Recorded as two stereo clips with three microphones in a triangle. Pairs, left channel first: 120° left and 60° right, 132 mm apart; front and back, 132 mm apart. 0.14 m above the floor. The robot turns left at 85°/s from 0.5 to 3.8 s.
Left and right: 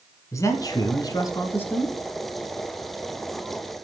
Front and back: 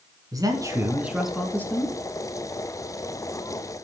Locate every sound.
0.3 s a man speaking: 160° left, 1.3 m; by 2.0 s 35° left, 1.3 m